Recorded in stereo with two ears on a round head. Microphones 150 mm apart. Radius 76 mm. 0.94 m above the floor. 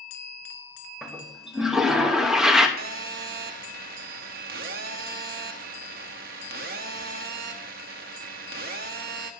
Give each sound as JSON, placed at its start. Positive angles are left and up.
{"t": 1.0, "sound": "a toilet flushing", "side_deg": -5, "distance_m": 1.0}
{"t": 2.8, "sound": "a phone buzzing", "side_deg": -60, "distance_m": 1.0}